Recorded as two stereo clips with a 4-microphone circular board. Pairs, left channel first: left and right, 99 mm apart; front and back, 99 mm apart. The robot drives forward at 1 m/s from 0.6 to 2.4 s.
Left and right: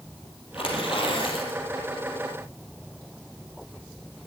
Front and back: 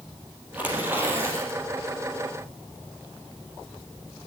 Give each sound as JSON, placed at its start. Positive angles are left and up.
{"t": 0.5, "sound": "tearing paper", "azimuth_deg": 105, "distance_m": 4.5}